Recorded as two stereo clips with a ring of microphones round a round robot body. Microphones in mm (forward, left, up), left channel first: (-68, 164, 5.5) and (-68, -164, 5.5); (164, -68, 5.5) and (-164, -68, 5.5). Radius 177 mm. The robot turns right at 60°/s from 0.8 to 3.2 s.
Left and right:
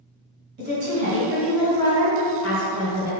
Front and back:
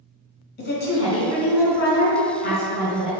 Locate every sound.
0.6 s a woman speaking: 45° right, 1.5 m; by 3.1 s 95° left, 1.5 m